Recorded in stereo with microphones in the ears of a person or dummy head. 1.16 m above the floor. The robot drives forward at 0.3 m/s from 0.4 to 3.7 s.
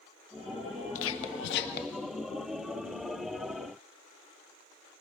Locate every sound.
0.9 s whispering: 70° left (ahead or behind), 0.7 m; by 2.0 s 55° left (ahead or behind), 0.8 m